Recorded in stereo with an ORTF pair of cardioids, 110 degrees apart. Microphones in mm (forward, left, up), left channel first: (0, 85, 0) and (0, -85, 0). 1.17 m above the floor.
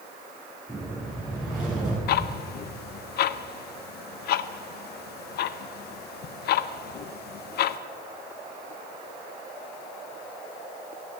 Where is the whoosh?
Straight ahead, 7 m.